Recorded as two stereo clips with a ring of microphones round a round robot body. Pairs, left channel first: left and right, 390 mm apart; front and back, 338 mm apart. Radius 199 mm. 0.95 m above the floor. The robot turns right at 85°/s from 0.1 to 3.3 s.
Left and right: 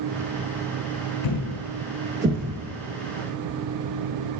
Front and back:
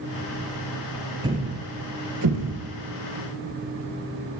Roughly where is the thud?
Left.